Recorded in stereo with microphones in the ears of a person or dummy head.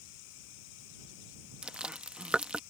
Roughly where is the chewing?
Centre.